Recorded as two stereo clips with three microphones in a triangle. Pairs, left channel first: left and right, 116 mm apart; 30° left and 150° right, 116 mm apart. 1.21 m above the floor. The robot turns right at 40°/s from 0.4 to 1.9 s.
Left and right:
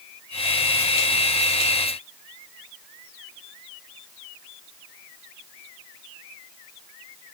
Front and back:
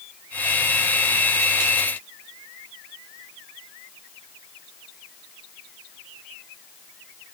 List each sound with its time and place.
Only background noise.